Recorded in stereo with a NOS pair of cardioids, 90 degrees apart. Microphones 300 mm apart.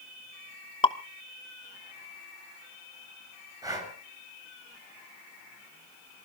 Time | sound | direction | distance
0.8 | dripping | 15° left | 1.0 m
3.6 | breathing | 10° right | 7.5 m